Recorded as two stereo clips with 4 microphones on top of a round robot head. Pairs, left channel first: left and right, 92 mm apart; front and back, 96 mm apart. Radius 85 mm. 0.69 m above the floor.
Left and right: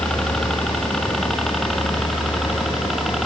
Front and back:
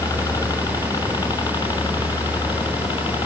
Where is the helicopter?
10° left; by 3.3 s straight ahead.